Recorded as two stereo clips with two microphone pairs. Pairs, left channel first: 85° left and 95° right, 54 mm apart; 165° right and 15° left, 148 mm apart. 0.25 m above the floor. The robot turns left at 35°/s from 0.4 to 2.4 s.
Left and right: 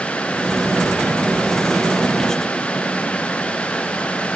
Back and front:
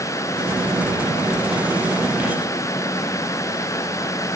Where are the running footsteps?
I don't hear running footsteps.